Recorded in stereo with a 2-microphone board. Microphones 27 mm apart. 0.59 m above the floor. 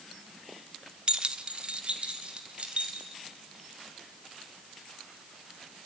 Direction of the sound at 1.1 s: 30° right (ahead or behind).